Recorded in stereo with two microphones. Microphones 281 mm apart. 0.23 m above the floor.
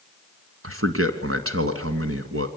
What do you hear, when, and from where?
0.6 s a man speaking: 50° right (ahead or behind), 2.0 m